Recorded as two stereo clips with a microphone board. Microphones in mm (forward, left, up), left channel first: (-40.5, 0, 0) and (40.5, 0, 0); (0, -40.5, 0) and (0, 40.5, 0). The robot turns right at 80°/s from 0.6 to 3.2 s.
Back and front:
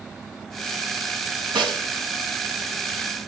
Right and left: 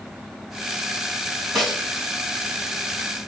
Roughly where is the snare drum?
Ahead.